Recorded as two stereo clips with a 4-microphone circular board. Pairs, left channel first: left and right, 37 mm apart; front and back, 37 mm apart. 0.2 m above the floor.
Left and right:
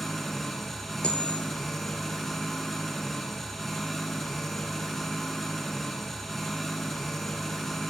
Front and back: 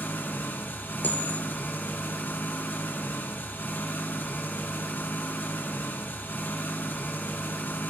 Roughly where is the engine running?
Ahead.